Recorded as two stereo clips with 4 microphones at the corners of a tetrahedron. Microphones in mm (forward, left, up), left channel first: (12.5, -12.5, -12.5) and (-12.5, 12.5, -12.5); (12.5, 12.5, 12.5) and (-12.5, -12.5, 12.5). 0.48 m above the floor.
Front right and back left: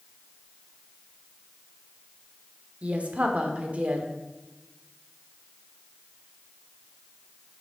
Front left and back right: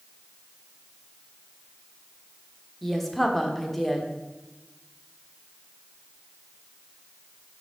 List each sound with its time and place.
2.8 s a woman speaking: 125° left, 1.2 m